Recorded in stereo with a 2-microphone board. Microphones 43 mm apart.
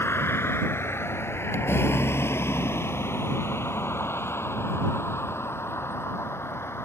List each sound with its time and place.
0.0 s a vehicle: 75° left (ahead or behind)